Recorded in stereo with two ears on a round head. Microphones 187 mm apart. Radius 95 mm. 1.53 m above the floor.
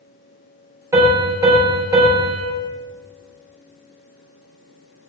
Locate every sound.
0.9 s a piano: 15° right (ahead or behind), 3 m